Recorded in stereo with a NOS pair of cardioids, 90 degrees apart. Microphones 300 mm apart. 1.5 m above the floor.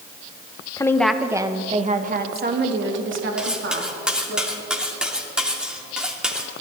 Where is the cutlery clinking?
5° right, 2.5 m.